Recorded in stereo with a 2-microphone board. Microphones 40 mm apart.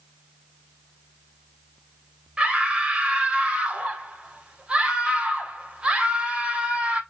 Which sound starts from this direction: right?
A scream, at 2.4 s.